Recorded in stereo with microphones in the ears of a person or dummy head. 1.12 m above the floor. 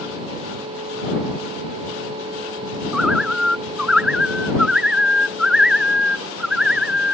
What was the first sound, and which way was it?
A bird, 5° right (ahead or behind).